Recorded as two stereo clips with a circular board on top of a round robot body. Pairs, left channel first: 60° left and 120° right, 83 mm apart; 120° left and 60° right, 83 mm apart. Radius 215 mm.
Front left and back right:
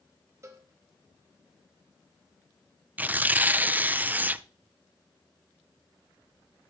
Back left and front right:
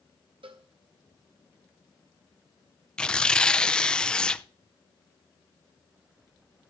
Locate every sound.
0.4 s a cowbell: 65° right, 1.0 m
3.0 s tearing paper: 170° right, 0.6 m